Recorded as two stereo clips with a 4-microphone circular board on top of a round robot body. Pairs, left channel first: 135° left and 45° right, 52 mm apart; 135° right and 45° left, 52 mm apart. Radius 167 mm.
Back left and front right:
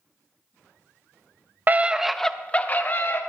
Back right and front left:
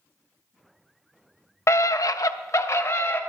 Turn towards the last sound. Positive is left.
turn(degrees=180)